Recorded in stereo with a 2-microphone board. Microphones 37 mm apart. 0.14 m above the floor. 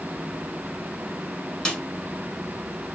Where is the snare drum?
25° left (ahead or behind), 0.9 m.